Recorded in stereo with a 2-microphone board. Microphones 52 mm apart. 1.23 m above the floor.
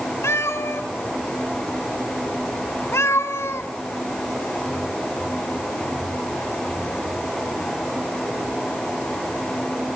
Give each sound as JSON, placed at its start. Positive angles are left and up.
{"t": 0.2, "sound": "a cat meowing", "side_deg": 60, "distance_m": 1.5}